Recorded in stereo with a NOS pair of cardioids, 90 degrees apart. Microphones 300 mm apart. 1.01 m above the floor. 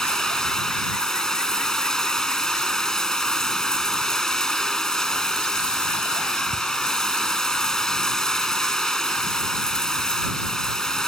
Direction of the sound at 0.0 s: Straight ahead.